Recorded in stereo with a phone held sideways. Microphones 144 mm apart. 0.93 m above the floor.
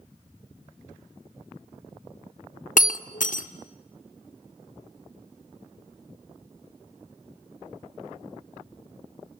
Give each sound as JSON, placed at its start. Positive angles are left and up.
{"t": 2.8, "sound": "breaking glass", "side_deg": 65, "distance_m": 0.9}